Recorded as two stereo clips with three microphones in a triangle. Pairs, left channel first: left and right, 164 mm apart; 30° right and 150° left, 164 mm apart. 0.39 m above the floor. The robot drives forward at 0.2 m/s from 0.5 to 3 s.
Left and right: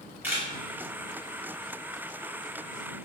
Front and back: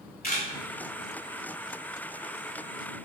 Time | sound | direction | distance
0.2 | a camera shutter | 15° right | 1.0 m